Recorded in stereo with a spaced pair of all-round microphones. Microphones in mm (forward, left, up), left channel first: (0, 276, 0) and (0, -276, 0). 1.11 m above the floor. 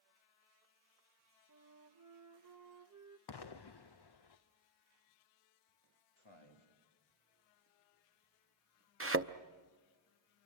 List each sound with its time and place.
1.5 s a flute: 30° right (ahead or behind), 0.9 m
3.3 s an explosion: 45° left (ahead or behind), 0.6 m
6.2 s a man speaking: 50° left (ahead or behind), 3 m
9.0 s a thud: 25° right (ahead or behind), 0.6 m